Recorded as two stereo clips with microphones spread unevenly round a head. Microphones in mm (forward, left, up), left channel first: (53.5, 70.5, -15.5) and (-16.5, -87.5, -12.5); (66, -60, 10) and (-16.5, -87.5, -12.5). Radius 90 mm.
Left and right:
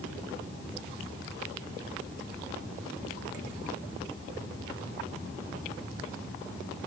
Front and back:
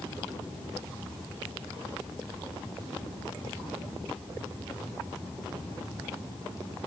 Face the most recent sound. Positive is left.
No sound to turn to.